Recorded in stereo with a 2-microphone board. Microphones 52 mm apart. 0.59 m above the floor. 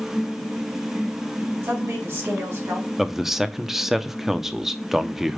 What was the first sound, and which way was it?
A woman speaking, 55° right (ahead or behind).